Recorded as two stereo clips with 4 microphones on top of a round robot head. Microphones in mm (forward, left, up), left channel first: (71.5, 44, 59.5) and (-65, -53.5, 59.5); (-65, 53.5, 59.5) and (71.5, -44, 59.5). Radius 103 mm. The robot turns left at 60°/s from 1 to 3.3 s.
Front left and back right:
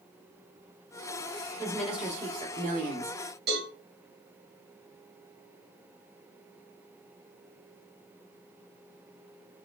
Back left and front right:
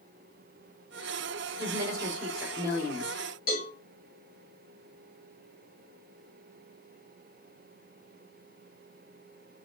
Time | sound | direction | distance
1.6 | a woman speaking | 40° right | 2 m
3.5 | a cowbell | 170° right | 2.5 m